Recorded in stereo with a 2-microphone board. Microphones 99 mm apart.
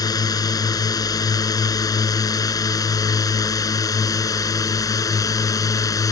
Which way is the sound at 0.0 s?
40° left (ahead or behind).